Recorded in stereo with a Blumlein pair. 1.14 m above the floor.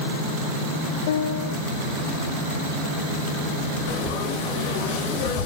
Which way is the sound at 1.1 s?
55° left.